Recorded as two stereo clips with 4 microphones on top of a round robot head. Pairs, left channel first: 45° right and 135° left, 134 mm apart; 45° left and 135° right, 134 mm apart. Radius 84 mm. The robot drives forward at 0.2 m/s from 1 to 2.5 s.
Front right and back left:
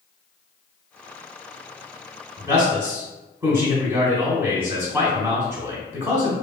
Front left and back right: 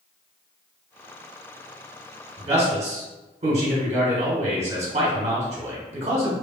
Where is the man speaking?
160° right, 1.4 m.